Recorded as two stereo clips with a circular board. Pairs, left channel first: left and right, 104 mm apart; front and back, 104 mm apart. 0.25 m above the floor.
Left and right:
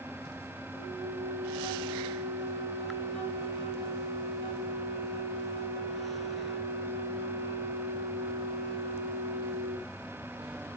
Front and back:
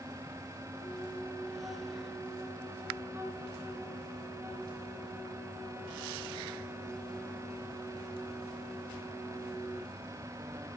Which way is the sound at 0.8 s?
115° right.